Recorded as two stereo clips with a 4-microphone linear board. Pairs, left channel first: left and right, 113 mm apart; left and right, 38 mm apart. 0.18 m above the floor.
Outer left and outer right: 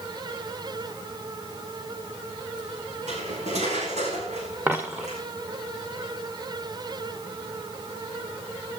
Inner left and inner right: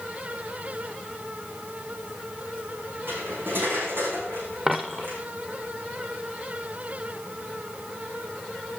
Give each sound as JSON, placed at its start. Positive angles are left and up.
{"t": 3.1, "sound": "cutlery clinking", "side_deg": -85, "distance_m": 8.5}
{"t": 4.7, "sound": "a dropped coin", "side_deg": -15, "distance_m": 2.0}